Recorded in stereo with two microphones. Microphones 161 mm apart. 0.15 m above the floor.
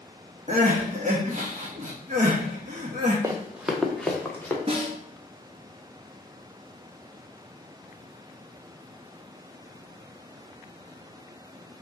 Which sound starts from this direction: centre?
Running footsteps, at 3.2 s.